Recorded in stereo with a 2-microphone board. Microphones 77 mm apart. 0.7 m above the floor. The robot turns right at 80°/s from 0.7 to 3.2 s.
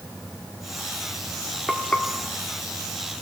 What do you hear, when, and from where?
1.7 s frying: centre (ahead or behind), 1.1 m; by 2.1 s 30° left (ahead or behind), 1.1 m